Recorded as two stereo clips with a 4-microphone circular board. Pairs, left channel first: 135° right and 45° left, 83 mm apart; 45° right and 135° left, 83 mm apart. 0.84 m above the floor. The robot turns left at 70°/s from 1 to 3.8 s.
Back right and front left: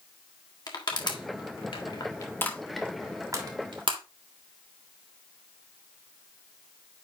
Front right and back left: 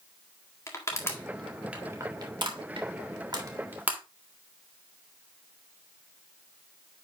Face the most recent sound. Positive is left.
turn(degrees=65)